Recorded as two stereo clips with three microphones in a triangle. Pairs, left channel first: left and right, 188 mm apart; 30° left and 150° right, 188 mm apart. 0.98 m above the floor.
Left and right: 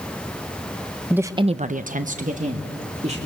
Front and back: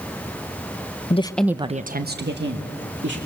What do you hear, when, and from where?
1.1 s a woman speaking: 10° right, 0.8 m; by 3.2 s 145° right, 2.5 m